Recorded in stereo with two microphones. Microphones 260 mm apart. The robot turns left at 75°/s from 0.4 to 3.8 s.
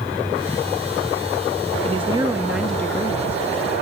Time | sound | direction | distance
1.8 | a woman speaking | 25° right (ahead or behind) | 0.9 m